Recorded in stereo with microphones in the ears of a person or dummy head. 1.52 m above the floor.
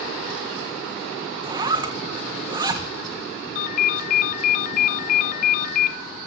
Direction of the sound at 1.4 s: 30° right (ahead or behind).